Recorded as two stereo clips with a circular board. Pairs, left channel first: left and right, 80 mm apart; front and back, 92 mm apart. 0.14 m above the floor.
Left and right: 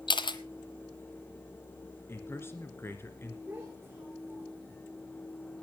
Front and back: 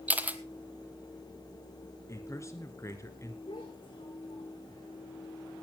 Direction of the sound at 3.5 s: 20° right.